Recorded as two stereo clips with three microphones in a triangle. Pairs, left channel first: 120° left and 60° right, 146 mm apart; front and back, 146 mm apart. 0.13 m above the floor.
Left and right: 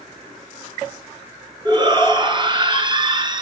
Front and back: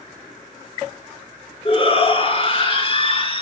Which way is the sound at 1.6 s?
20° right.